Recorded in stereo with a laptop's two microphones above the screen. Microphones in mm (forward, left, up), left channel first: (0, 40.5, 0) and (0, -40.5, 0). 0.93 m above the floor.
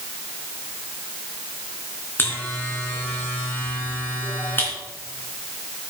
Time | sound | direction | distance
2.2 | a buzzer | 25° left (ahead or behind) | 3 m